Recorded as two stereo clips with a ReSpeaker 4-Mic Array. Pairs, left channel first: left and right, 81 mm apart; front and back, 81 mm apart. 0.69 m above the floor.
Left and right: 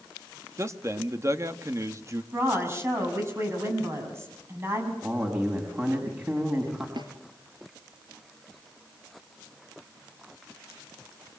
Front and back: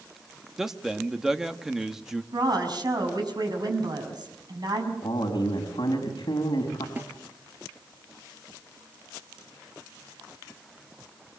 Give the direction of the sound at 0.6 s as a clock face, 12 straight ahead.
3 o'clock.